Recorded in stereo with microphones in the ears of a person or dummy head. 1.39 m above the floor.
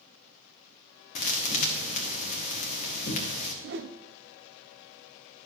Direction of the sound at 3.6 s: 55° right (ahead or behind).